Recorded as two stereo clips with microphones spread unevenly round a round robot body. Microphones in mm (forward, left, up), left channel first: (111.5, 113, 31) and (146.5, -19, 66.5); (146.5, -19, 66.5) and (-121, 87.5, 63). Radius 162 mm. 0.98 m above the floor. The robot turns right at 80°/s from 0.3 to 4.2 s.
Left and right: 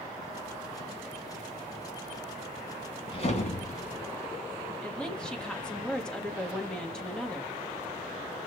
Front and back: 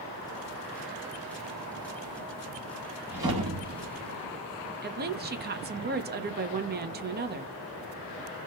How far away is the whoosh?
About 1.8 m.